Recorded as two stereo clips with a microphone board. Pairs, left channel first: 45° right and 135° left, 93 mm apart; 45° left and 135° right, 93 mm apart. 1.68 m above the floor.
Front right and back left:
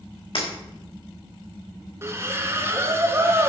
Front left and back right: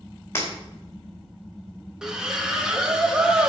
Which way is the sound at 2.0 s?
150° left.